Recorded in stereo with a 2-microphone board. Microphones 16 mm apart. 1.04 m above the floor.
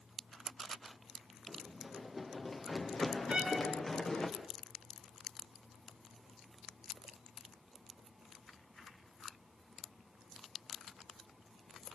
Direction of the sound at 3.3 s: 70° right (ahead or behind).